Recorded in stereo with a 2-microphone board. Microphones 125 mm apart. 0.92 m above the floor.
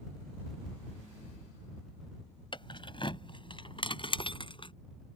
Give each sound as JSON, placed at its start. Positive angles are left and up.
{"t": 2.5, "sound": "keys jangling", "side_deg": 40}